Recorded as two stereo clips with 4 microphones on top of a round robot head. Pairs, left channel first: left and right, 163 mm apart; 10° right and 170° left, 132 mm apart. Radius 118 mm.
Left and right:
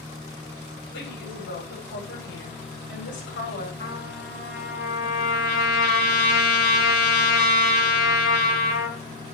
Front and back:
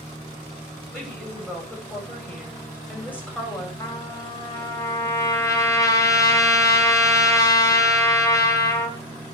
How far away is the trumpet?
About 1.8 m.